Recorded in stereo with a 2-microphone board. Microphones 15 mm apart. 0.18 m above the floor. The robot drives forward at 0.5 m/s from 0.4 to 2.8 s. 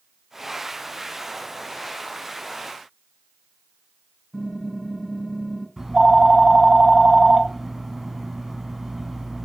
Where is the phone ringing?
20° right (ahead or behind), 0.6 m.